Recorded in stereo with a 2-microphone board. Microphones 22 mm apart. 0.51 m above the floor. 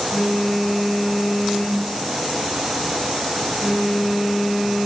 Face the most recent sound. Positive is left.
turn(degrees=15)  # may be behind; listen again after turning